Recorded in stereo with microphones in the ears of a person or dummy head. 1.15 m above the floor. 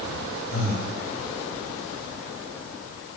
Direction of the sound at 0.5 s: 45° left (ahead or behind).